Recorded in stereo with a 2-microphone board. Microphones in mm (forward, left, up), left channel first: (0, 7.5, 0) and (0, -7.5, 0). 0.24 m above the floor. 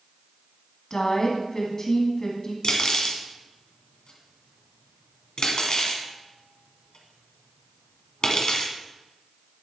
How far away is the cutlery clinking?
About 1.4 m.